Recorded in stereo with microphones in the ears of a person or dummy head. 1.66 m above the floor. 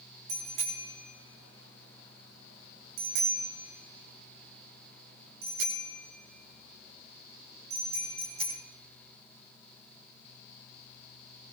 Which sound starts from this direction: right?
A bicycle bell, at 0.3 s.